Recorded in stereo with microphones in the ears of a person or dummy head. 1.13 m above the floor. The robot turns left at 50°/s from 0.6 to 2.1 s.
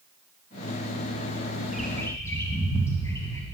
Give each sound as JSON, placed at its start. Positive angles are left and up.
{"t": 1.7, "sound": "a bird", "side_deg": -10, "distance_m": 1.6}